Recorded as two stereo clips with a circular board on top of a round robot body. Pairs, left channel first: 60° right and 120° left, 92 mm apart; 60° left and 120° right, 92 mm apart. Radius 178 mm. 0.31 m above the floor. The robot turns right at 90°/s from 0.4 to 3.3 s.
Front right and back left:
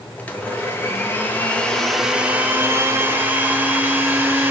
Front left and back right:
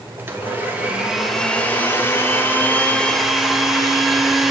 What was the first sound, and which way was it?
A blender, 105° right.